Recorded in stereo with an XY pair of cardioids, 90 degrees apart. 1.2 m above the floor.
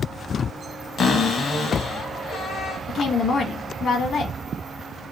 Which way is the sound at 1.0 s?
55° left.